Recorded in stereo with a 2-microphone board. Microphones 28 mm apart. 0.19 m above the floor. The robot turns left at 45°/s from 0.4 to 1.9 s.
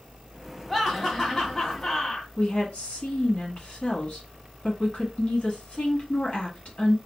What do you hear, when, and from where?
0.7 s laughter: centre (ahead or behind), 1.3 m; by 2.3 s 20° left (ahead or behind), 1.3 m
2.4 s a woman speaking: 45° left (ahead or behind), 1.5 m